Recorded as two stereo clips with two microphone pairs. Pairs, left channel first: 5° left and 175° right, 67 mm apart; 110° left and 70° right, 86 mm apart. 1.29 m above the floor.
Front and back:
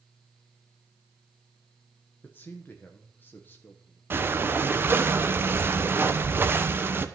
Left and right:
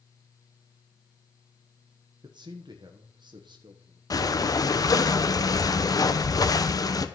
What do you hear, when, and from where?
2.2 s a man speaking: 55° right, 1.1 m
4.1 s breathing: 135° left, 0.9 m